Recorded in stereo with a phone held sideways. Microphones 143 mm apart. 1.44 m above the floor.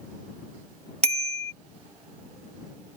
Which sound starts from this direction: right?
A bicycle bell, at 1.0 s.